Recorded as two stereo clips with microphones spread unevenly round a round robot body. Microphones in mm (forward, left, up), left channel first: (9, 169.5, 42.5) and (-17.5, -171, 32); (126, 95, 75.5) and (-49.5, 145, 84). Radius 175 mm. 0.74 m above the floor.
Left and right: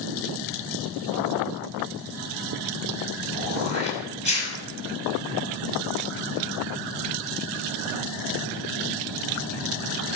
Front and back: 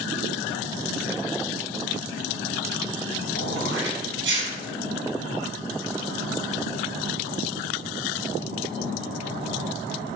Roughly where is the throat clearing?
Behind left.